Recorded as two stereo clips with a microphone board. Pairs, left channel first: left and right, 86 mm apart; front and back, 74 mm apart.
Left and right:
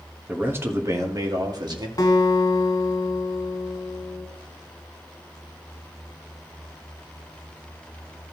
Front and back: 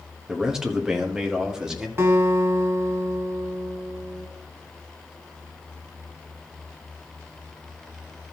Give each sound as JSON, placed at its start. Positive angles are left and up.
{"t": 0.3, "sound": "a man speaking", "azimuth_deg": -110, "distance_m": 1.1}
{"t": 2.0, "sound": "a guitar", "azimuth_deg": 130, "distance_m": 1.9}